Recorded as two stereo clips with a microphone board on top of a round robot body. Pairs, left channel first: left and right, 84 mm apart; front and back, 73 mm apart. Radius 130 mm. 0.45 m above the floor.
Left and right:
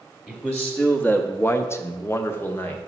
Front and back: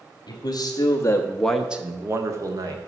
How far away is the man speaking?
About 1.2 m.